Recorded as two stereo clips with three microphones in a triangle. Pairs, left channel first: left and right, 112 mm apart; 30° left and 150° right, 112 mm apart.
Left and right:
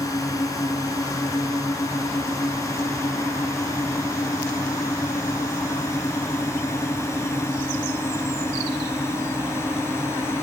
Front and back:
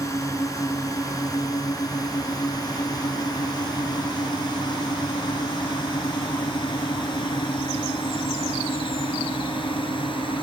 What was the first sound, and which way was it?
A drone, 60° left.